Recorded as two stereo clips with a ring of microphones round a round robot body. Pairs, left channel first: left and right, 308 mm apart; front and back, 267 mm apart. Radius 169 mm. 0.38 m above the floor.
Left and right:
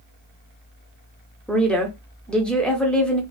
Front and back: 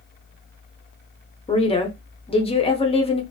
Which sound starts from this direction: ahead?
A woman speaking, at 1.5 s.